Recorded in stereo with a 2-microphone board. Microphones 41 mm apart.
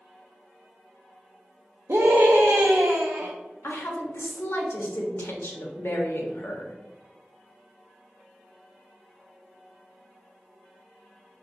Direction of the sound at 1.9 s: 70° right (ahead or behind).